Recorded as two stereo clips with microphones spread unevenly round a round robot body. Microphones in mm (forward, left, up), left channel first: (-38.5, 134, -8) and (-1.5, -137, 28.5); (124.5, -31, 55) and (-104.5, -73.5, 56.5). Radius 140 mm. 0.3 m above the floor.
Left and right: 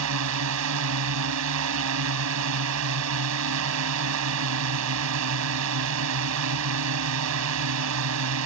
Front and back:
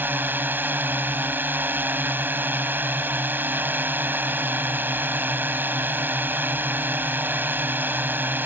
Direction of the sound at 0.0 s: 90° right.